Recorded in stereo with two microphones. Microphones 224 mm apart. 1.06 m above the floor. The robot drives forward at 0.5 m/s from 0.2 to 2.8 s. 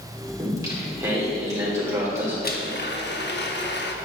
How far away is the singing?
About 2.5 m.